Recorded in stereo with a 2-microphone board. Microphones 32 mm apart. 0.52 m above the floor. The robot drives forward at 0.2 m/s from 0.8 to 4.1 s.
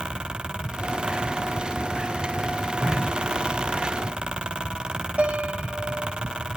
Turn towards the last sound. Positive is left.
turn(degrees=-50)  # may be behind; listen again after turning